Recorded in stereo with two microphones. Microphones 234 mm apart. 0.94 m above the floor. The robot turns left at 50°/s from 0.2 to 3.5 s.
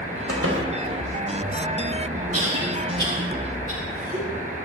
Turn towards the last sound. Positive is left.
turn(degrees=-20)  # may be behind; listen again after turning